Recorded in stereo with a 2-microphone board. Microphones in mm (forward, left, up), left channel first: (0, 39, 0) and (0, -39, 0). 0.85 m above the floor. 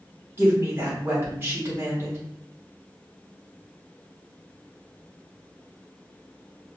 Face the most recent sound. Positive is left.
turn(degrees=-30)  # may be behind; listen again after turning